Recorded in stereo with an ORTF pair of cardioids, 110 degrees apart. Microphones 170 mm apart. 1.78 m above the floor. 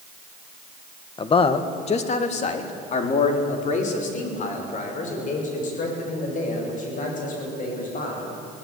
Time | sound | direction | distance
1.2 | a man speaking | 30° left | 1.7 m